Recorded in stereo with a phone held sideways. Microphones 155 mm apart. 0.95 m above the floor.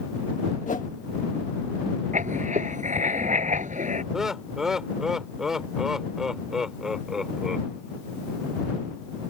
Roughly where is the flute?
No flute in this recording.